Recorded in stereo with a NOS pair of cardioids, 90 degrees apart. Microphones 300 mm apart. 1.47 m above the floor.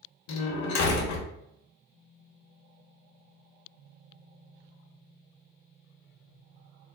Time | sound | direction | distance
0.3 | a door slam | 70° left | 1.0 m